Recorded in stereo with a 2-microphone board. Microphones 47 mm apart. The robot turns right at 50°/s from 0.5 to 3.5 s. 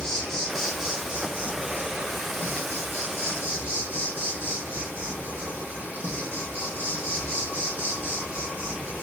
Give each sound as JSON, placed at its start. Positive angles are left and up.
{"t": 0.0, "sound": "an insect", "azimuth_deg": 170, "distance_m": 0.8}